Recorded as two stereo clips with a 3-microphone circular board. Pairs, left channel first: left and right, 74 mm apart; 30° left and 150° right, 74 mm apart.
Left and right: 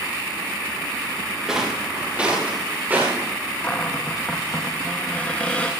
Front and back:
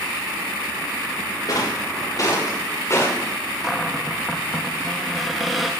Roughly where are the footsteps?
Ahead.